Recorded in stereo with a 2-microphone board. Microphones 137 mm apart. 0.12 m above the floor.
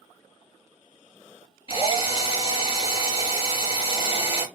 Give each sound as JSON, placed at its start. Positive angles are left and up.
{"t": 1.7, "sound": "a drill", "side_deg": 40, "distance_m": 2.0}